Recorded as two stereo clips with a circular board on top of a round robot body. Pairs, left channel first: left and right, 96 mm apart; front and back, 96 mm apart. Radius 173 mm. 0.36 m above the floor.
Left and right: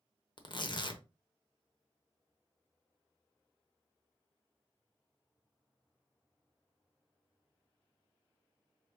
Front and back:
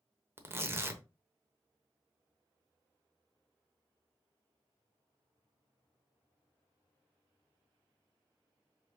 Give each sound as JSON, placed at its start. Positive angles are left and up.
{"t": 0.4, "sound": "tearing paper", "azimuth_deg": 120, "distance_m": 1.0}